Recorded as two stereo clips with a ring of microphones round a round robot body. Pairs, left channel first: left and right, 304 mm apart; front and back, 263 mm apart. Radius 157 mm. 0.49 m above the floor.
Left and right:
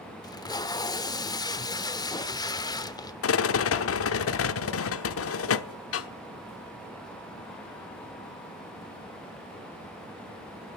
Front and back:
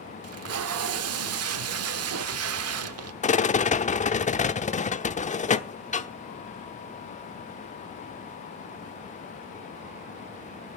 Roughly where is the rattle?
Ahead left.